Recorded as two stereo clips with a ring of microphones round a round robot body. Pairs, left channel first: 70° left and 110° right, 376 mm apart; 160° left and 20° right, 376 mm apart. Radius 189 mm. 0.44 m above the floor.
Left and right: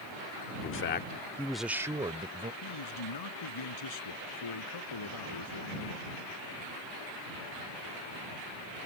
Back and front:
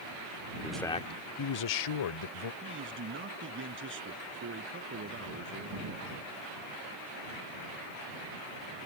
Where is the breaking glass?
I don't hear breaking glass.